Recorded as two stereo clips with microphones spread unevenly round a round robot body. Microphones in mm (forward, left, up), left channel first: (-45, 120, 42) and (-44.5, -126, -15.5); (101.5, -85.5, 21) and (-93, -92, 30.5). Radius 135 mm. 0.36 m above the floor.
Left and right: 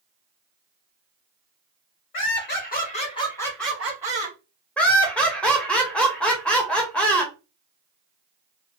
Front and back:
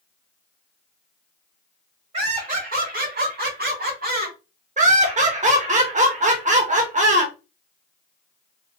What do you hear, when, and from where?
2.1 s laughter: 125° left, 2 m; by 4.4 s 145° right, 2 m
4.8 s laughter: 165° right, 0.9 m